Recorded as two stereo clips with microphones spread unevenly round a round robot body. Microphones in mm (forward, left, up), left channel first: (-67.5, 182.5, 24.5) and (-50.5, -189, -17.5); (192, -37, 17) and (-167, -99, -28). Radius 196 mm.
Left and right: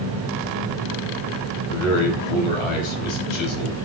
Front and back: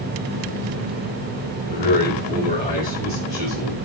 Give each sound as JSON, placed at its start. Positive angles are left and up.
{"t": 1.7, "sound": "a man speaking", "azimuth_deg": 95, "distance_m": 5.5}